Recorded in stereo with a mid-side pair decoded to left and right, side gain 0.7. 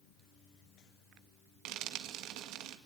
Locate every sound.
1.6 s frying: 65° right, 2.0 m